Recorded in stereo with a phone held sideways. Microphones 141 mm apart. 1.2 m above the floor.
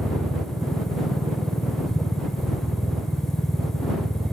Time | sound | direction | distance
0.0 | a machine running | centre (ahead or behind) | ?